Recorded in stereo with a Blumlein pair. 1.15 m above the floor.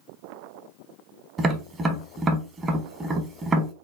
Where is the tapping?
20° right, 0.8 m.